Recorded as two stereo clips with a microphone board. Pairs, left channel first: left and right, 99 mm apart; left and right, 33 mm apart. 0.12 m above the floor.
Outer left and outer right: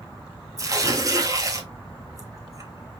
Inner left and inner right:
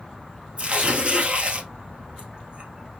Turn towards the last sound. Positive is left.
turn(degrees=-35)  # may be behind; listen again after turning